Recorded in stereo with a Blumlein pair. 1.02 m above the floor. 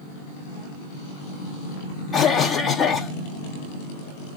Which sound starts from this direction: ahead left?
A cough, at 2.1 s.